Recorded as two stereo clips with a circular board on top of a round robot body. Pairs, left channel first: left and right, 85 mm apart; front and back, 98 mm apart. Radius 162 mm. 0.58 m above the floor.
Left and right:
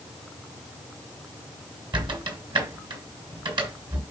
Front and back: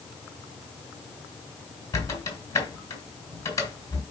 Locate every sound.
1.9 s a squeak: 60° right, 3 m